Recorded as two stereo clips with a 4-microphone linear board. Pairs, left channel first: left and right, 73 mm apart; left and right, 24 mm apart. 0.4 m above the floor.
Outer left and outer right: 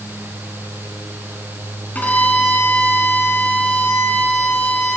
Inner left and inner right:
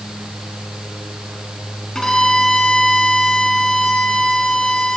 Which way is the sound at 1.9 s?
20° left (ahead or behind).